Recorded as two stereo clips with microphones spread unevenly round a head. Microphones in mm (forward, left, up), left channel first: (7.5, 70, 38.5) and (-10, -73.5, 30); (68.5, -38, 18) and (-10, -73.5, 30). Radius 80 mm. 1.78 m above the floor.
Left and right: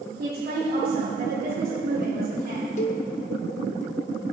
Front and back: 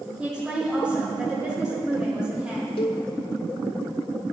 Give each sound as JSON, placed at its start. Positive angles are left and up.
{"t": 0.2, "sound": "a woman speaking", "azimuth_deg": -75, "distance_m": 4.0}
{"t": 2.8, "sound": "a cowbell", "azimuth_deg": 55, "distance_m": 0.7}